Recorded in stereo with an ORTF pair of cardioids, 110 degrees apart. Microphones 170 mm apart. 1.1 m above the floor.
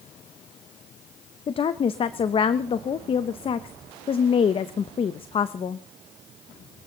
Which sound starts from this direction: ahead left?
A woman speaking, at 1.5 s.